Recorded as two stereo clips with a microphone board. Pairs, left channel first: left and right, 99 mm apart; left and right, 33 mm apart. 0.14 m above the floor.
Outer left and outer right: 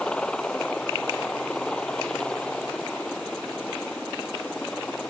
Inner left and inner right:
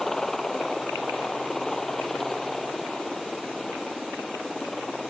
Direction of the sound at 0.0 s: 10° left (ahead or behind).